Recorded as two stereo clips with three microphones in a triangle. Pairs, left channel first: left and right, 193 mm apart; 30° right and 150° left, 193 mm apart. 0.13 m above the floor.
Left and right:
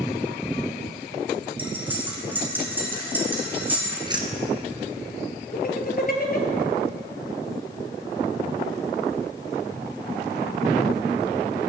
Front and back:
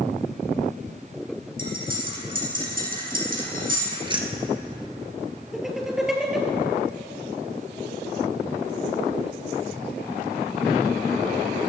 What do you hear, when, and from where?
1.6 s cutlery clinking: 170° right, 4.5 m
4.0 s keys jangling: 150° right, 1.6 m
5.5 s laughter: 65° left, 2.5 m